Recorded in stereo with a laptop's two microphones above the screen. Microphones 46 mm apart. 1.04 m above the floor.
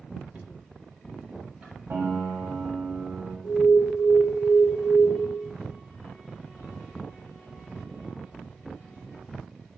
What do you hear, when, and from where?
0.3 s knocking: 30° right (ahead or behind), 0.8 m
1.9 s a piano: 50° right (ahead or behind), 1.5 m
3.4 s an alarm: 50° right (ahead or behind), 2.5 m